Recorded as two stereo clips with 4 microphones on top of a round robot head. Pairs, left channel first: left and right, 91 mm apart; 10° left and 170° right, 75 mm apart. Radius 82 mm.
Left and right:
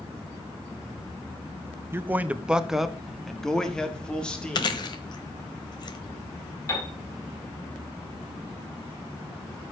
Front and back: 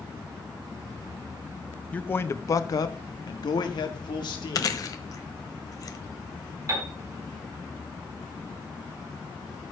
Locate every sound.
1.9 s a man speaking: 50° right, 0.6 m; by 4.8 s 10° left, 1.9 m
4.5 s chewing: 50° left, 1.0 m
6.7 s a piano: 150° left, 3 m